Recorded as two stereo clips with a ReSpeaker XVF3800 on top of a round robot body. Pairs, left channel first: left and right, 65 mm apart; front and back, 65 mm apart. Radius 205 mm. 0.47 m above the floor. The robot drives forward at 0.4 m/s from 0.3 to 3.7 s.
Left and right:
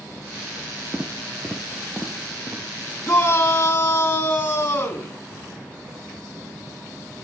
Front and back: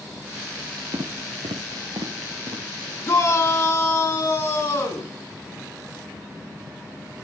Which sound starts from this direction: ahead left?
A shout, at 3.0 s.